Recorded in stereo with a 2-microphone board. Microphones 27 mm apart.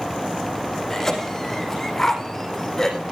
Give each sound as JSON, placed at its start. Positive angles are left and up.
{"t": 0.9, "sound": "a cough", "side_deg": 10, "distance_m": 5.0}